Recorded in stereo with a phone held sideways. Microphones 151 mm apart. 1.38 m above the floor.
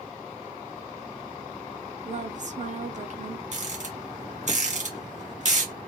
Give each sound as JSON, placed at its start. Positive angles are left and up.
{"t": 2.0, "sound": "a woman speaking", "side_deg": -55, "distance_m": 0.6}
{"t": 3.5, "sound": "a rattle", "side_deg": -55, "distance_m": 1.4}